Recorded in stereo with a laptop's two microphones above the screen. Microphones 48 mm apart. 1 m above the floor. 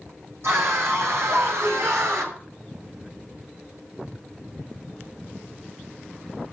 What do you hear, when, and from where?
0.4 s a scream: 70° right (ahead or behind), 6 m; by 2.4 s 75° right (ahead or behind), 4 m